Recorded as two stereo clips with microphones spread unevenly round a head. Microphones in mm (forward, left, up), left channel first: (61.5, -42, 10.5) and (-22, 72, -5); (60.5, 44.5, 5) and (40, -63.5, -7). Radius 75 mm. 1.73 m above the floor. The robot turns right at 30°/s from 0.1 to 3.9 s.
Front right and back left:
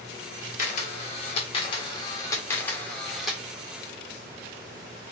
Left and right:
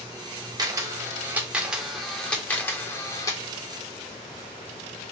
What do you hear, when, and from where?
0.6 s a camera shutter: 45° right, 1.0 m; by 3.4 s 40° left, 1.0 m